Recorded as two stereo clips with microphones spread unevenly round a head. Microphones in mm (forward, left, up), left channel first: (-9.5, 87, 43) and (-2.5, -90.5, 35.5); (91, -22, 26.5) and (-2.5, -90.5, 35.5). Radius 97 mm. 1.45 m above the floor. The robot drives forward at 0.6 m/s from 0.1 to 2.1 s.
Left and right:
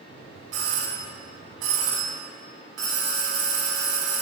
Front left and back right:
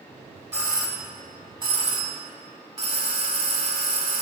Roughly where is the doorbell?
Right.